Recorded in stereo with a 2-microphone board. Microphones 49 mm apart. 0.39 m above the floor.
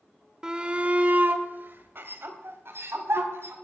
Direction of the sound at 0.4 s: 15° right (ahead or behind).